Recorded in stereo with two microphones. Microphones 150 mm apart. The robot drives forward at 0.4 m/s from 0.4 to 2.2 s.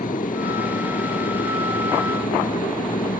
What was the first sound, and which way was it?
An aircraft, 60° left (ahead or behind).